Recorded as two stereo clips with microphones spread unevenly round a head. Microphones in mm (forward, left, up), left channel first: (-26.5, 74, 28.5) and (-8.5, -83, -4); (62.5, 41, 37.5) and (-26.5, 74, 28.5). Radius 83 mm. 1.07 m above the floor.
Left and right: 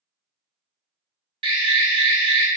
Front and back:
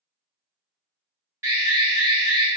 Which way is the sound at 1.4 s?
135° right.